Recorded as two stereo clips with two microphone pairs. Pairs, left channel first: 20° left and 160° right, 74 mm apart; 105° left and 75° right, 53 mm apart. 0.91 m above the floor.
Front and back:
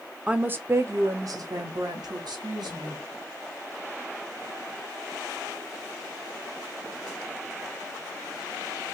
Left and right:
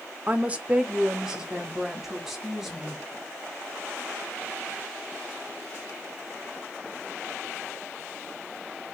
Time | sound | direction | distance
0.3 | a woman speaking | 95° right | 0.6 m